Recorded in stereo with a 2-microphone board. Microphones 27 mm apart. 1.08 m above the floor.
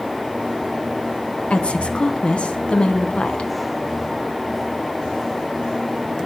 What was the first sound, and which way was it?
A woman speaking, 50° left (ahead or behind).